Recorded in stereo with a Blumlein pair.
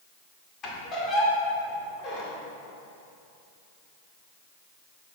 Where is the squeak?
25° left, 1.7 m.